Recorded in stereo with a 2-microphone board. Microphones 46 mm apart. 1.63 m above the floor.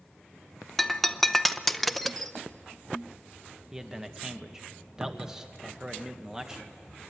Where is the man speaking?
10° right (ahead or behind), 1.3 m.